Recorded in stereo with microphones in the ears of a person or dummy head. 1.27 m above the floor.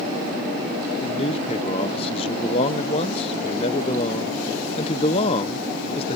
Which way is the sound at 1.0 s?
30° left (ahead or behind).